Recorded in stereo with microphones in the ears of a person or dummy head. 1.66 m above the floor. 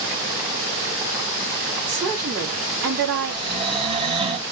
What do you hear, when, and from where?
1.9 s a woman speaking: 60° right (ahead or behind), 4.5 m
3.3 s snoring: 30° right (ahead or behind), 1.8 m